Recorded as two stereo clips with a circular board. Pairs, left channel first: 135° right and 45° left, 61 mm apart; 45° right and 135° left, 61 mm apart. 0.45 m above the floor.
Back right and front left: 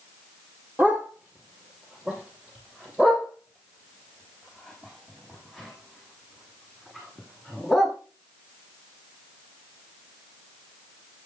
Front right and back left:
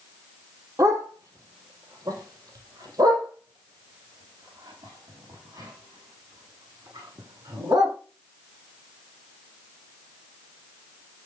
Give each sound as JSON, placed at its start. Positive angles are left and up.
{"t": 0.8, "sound": "a dog barking", "azimuth_deg": 110, "distance_m": 4.0}